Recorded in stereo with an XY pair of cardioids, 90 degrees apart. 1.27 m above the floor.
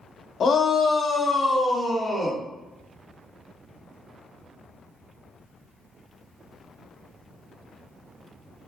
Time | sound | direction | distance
0.4 | a shout | 55° left | 0.8 m